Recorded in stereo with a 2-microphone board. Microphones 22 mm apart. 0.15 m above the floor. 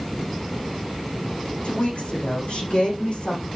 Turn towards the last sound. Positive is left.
turn(degrees=50)  # may be behind; listen again after turning